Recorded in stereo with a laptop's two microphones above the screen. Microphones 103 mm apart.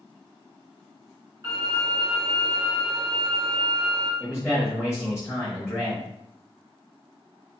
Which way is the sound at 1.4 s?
45° right (ahead or behind).